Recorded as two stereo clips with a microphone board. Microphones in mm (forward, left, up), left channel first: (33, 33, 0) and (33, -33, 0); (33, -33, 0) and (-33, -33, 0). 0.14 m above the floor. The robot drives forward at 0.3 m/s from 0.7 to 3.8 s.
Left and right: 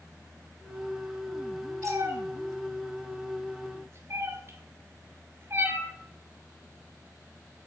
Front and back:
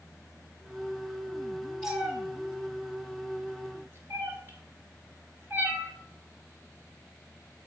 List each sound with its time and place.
1.8 s a cat meowing: 100° right, 1.1 m; by 5.9 s 130° right, 1.3 m